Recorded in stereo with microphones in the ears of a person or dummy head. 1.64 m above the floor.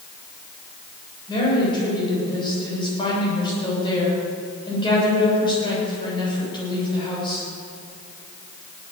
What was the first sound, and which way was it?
A woman speaking, 20° left (ahead or behind).